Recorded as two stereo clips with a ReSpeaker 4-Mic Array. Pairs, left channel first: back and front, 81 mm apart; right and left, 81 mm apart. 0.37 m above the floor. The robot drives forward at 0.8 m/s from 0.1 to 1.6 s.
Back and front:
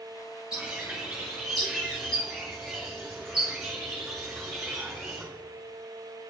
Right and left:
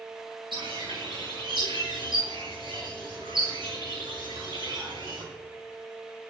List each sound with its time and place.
0.5 s a bird: 80° left, 5 m; by 5.2 s 90° left, 5 m